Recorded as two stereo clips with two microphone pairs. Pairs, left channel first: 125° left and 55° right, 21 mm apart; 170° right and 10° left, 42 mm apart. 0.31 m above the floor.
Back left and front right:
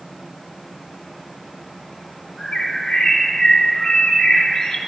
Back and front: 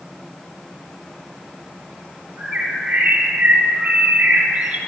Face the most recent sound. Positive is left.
turn(degrees=75)